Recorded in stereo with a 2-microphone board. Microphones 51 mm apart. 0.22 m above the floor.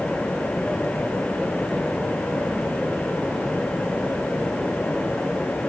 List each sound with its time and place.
Only background noise.